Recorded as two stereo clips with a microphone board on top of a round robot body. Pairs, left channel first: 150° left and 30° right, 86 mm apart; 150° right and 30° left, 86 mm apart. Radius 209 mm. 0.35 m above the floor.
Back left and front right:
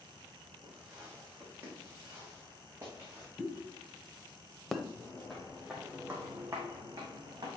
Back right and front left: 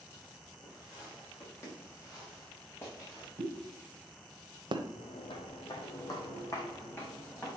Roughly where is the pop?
Ahead left.